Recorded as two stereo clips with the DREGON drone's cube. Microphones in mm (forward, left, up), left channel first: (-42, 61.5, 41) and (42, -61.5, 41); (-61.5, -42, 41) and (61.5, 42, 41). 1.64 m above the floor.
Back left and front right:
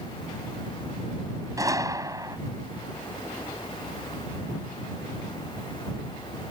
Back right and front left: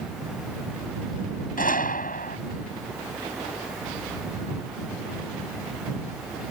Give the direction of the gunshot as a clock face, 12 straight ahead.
4 o'clock.